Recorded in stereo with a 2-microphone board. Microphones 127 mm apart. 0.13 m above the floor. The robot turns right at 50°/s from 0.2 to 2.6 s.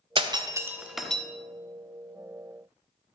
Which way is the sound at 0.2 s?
40° right (ahead or behind).